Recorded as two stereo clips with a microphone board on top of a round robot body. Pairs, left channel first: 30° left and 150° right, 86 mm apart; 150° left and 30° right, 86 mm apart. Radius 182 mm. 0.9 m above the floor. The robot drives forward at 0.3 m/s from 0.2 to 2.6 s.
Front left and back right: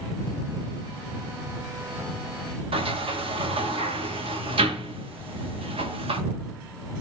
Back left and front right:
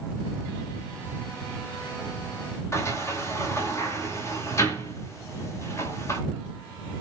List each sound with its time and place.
2.7 s a sliding door: 150° right, 1.6 m